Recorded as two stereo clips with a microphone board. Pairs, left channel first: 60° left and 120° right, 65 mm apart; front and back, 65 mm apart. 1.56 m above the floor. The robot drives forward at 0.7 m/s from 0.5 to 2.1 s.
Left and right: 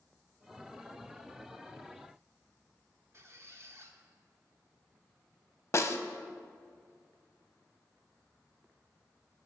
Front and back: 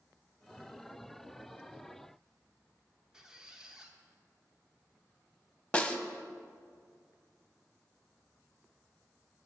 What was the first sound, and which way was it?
A squeak, 105° right.